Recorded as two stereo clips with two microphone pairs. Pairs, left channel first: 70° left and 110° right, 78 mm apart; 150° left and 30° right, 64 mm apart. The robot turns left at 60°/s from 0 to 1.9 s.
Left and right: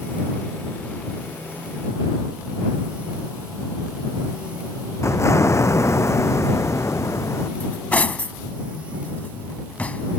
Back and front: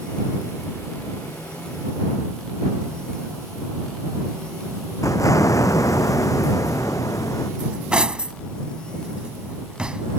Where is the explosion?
125° left.